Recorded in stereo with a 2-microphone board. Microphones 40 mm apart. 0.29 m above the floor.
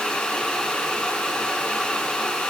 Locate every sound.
Only background noise.